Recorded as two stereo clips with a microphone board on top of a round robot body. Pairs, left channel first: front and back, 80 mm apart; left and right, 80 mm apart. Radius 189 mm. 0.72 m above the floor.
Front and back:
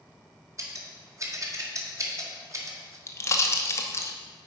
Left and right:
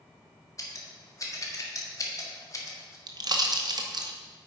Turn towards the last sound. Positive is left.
turn(degrees=-55)